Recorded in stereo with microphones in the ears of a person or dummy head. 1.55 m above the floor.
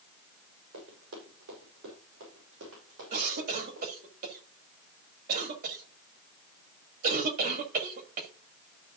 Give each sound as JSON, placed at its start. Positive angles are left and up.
{"t": 0.7, "sound": "running footsteps", "side_deg": -75, "distance_m": 6.5}
{"t": 3.1, "sound": "a cough", "side_deg": -55, "distance_m": 2.5}